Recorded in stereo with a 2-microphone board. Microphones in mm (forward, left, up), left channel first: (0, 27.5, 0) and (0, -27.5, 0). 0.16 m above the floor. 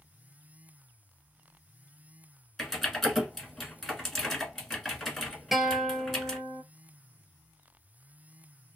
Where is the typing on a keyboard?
5° left (ahead or behind), 1.3 m.